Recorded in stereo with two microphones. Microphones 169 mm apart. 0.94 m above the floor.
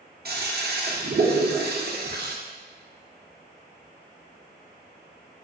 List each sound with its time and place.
0.2 s a toilet flushing: 60° right (ahead or behind), 0.5 m